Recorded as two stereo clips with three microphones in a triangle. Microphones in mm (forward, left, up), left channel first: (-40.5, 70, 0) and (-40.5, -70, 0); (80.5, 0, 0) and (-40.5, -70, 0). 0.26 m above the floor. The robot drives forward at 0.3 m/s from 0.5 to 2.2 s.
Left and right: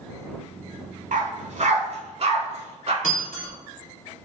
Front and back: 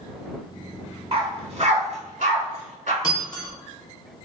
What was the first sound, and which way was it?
A dog barking, 100° right.